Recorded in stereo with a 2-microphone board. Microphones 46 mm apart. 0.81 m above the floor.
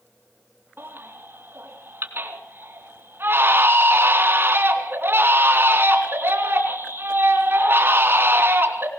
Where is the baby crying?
50° right (ahead or behind), 3 m.